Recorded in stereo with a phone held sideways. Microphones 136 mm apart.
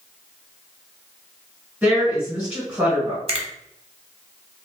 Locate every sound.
1.8 s a woman speaking: 10° right (ahead or behind), 1.5 m
3.3 s a finger snap: 45° right (ahead or behind), 0.8 m